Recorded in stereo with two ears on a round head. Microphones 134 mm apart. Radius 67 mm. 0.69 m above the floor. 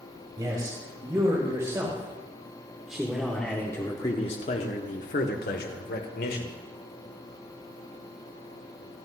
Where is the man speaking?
30° right (ahead or behind), 3.5 m; by 6.5 s 70° left (ahead or behind), 2 m.